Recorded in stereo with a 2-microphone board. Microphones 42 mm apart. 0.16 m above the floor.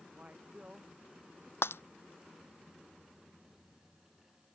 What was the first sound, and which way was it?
A man speaking, 35° right (ahead or behind).